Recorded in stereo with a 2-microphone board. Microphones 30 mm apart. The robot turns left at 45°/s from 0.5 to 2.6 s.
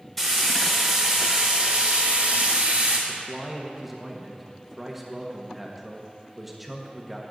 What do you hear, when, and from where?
0.2 s frying: 10° left, 2.0 m; by 3.0 s 85° right, 2.0 m
3.1 s a man speaking: 10° right (ahead or behind), 1.1 m